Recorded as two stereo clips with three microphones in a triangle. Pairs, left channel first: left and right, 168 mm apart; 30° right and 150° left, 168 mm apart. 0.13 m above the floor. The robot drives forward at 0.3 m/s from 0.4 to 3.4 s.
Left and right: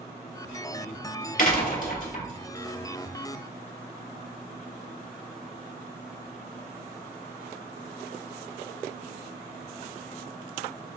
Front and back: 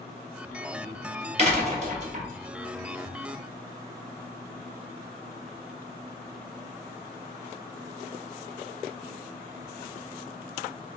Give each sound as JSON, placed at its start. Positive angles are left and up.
{"t": 1.4, "sound": "a door slam", "azimuth_deg": 110, "distance_m": 1.7}